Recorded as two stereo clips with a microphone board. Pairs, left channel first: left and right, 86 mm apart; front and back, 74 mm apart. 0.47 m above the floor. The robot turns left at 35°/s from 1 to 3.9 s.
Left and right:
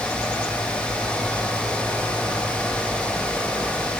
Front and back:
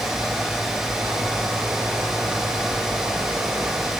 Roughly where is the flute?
No flute in this recording.